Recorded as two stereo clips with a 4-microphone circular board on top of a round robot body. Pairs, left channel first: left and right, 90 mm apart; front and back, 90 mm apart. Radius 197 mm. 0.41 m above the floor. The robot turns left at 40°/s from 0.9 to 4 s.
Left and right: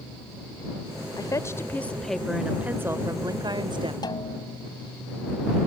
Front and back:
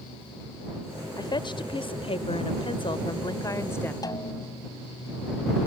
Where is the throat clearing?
No throat clearing in this recording.